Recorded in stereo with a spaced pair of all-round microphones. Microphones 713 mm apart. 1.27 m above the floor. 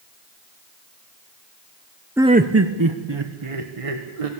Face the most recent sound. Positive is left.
turn(degrees=-55)  # may be behind; listen again after turning